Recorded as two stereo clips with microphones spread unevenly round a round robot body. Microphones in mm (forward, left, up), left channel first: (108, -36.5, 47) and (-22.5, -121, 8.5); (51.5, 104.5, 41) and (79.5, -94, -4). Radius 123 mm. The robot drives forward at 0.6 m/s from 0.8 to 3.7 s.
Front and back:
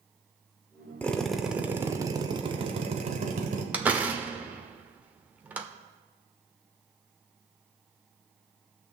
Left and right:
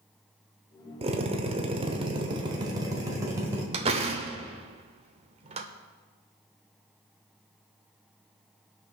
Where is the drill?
60° right, 1.1 m; by 3.6 s 150° right, 1.6 m.